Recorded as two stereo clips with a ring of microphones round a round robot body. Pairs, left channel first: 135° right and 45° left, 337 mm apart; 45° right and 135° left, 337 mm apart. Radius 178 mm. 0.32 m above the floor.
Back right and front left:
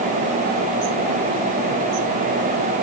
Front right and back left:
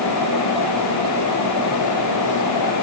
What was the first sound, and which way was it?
Only background noise.